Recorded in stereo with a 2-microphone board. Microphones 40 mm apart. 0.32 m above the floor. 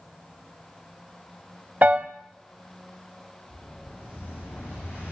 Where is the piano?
50° right (ahead or behind), 0.5 m.